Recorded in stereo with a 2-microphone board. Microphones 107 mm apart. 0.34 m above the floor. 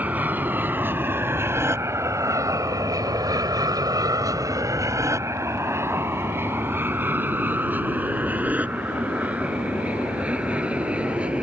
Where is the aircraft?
15° right (ahead or behind); by 11.4 s 10° right (ahead or behind).